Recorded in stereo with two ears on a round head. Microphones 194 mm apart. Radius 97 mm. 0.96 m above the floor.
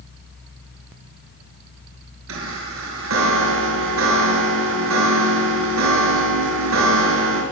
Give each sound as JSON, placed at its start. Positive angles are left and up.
{"t": 2.3, "sound": "a chime", "side_deg": -65, "distance_m": 6.5}